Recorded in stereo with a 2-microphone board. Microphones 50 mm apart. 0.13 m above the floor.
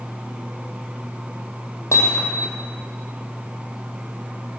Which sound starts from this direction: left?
Hammering, at 1.9 s.